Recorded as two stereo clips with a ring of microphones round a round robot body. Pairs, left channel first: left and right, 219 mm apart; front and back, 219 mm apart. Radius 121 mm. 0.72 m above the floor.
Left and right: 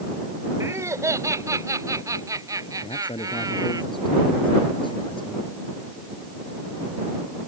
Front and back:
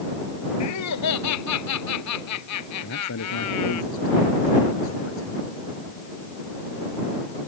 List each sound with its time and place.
0.6 s laughter: 15° right
2.8 s a man speaking: 20° left